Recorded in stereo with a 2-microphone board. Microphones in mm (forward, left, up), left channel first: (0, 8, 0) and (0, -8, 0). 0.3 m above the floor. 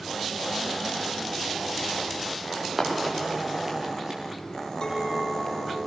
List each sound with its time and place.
2.5 s running footsteps: 25° right (ahead or behind), 9 m; by 4.2 s 35° right (ahead or behind), 9 m
4.8 s a clink: 45° left (ahead or behind), 7.5 m